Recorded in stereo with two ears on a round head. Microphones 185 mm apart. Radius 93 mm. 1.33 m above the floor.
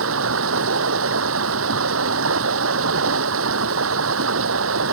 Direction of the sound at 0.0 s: 70° right (ahead or behind).